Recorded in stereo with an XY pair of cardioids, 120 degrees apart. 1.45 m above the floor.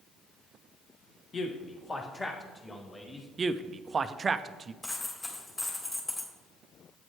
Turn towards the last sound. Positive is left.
turn(degrees=25)